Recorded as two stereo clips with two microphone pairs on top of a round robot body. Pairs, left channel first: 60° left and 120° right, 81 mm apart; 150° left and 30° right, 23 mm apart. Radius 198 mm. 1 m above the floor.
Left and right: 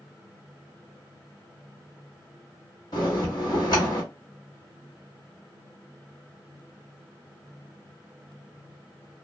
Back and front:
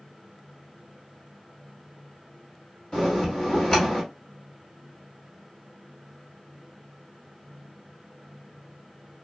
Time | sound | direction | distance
2.9 | a bell | 95° left | 0.8 m